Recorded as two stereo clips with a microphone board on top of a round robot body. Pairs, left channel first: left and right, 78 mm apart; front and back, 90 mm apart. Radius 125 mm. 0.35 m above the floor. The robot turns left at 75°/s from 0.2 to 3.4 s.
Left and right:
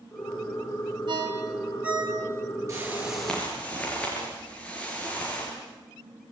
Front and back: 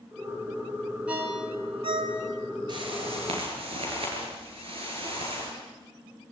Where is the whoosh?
140° right, 7 m; by 5.5 s 165° left, 7 m.